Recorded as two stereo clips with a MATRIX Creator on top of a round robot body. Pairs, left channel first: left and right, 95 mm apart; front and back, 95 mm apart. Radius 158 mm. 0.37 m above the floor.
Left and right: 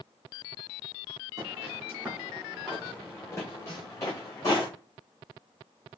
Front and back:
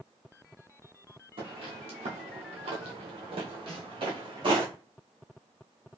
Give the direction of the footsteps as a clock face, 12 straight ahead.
5 o'clock.